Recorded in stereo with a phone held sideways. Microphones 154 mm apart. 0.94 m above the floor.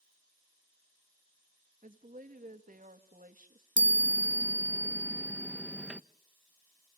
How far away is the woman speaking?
About 1.6 m.